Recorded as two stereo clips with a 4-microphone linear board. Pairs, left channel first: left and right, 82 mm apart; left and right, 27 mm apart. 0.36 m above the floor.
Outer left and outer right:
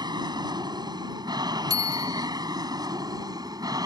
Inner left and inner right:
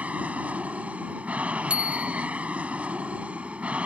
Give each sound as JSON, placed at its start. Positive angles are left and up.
{"t": 0.0, "sound": "an aircraft", "side_deg": -60}
{"t": 1.7, "sound": "a bicycle bell", "side_deg": -50}